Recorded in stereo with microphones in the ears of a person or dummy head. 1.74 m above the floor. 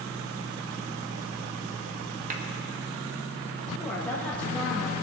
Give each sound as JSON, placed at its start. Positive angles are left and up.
{"t": 2.3, "sound": "a clap", "side_deg": -40, "distance_m": 1.3}
{"t": 3.8, "sound": "a woman speaking", "side_deg": 10, "distance_m": 1.4}